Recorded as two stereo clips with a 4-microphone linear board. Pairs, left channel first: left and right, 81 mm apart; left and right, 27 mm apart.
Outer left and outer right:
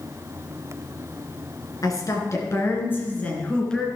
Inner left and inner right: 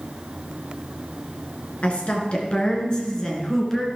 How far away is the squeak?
No squeak in this recording.